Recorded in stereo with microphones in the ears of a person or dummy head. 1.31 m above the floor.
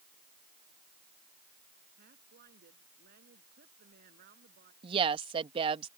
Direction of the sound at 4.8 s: 35° right (ahead or behind).